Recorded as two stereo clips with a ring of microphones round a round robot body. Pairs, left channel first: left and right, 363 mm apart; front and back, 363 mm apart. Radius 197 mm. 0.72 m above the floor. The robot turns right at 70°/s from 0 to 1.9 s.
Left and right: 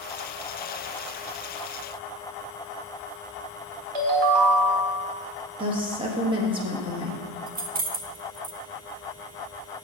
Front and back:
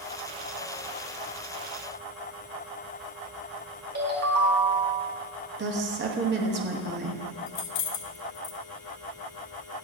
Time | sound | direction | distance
4.0 | a ringtone | 115° right | 1.6 m
5.6 | a woman speaking | 155° right | 1.1 m
7.5 | keys jangling | 20° right | 0.9 m